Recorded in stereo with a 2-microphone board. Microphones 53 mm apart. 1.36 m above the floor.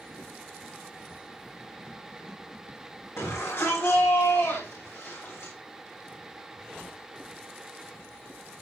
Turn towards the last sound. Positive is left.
turn(degrees=55)  # may be behind; listen again after turning